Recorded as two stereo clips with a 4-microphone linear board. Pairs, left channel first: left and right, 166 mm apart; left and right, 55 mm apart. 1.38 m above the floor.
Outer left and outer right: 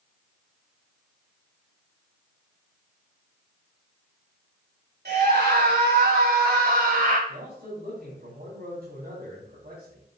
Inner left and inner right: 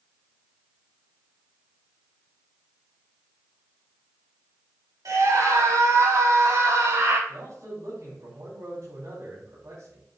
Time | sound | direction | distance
5.0 | a scream | 85° right | 3 m
7.3 | a man speaking | 75° right (ahead or behind) | 3.5 m